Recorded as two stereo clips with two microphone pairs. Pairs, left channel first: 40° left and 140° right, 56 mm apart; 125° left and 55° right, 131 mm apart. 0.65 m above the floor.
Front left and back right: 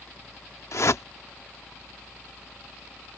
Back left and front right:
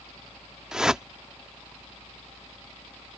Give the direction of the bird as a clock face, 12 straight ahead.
I don't hear a bird.